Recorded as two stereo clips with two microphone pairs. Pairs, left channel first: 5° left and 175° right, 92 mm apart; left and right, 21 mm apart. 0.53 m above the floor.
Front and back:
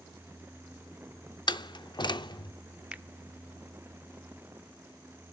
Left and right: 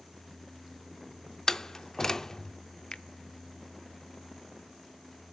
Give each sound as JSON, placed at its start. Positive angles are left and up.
{"t": 1.5, "sound": "a door slam", "azimuth_deg": 30, "distance_m": 0.6}
{"t": 2.9, "sound": "a finger snap", "azimuth_deg": 115, "distance_m": 0.6}